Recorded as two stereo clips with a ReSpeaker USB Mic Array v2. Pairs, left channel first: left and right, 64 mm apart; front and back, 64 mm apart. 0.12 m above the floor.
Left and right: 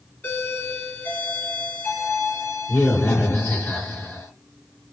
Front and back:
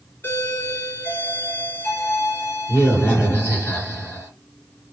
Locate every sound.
0.2 s a doorbell: 35° left, 2.5 m